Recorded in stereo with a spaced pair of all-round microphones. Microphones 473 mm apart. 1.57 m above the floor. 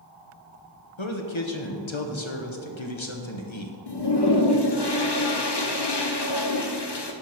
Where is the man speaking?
75° left (ahead or behind), 1.1 m.